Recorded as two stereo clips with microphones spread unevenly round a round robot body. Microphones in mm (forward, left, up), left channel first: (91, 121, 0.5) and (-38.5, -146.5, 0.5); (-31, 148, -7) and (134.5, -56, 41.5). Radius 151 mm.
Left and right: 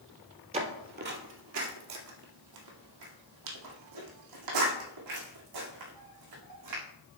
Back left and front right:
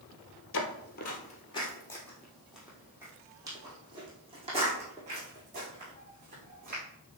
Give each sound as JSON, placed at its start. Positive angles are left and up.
{"t": 0.5, "sound": "footsteps", "azimuth_deg": 180, "distance_m": 1.3}